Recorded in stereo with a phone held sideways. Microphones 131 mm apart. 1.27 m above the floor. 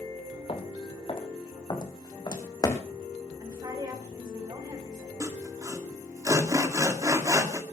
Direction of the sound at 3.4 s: 35° right (ahead or behind).